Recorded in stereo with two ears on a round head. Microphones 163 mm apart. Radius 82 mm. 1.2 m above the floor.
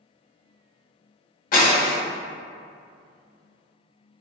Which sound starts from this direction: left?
Breaking glass, at 1.5 s.